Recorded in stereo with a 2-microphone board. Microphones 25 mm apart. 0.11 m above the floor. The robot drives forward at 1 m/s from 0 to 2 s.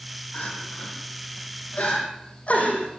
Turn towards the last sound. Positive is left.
turn(degrees=65)  # may be behind; listen again after turning